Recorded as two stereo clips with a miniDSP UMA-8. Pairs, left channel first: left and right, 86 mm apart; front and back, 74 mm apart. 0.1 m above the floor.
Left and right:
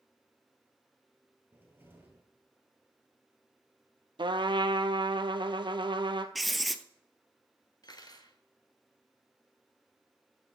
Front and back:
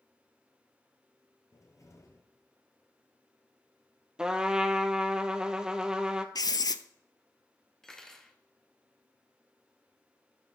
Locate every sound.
1.5 s a cupboard door: 30° right, 1.8 m
4.2 s a trumpet: 100° right, 0.7 m
6.3 s writing: straight ahead, 0.5 m
7.8 s cutlery clinking: 80° left, 1.0 m